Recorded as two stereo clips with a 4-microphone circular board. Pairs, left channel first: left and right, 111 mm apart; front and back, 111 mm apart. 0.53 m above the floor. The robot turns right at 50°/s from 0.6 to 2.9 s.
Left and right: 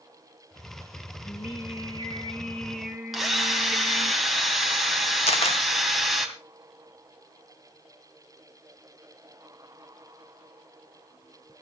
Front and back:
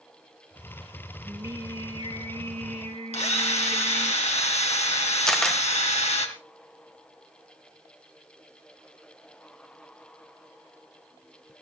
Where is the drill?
Straight ahead, 2.5 m.